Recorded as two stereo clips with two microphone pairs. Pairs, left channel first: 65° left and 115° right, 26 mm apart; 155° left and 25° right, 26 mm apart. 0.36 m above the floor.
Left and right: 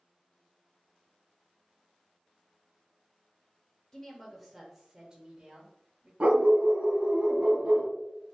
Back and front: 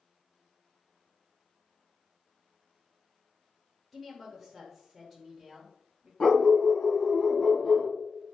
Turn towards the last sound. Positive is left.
turn(degrees=-145)